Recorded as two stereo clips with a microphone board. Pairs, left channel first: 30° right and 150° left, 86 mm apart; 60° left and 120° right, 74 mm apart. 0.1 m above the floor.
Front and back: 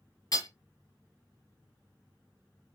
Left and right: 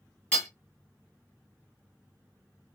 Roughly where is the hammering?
Ahead.